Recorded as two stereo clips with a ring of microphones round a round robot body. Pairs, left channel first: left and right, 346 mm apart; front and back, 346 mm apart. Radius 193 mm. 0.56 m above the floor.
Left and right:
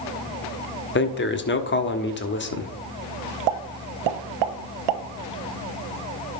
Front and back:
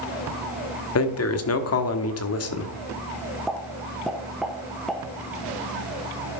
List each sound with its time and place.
0.9 s a man speaking: 35° left, 1.2 m
3.5 s a pop: 90° right, 0.7 m